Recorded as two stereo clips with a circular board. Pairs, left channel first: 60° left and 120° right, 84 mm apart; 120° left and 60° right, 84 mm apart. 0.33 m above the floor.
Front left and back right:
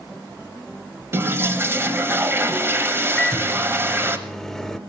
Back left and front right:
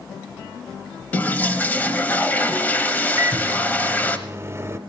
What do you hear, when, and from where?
1.1 s a toilet flushing: 175° right, 0.9 m
3.2 s a microwave: 25° right, 0.8 m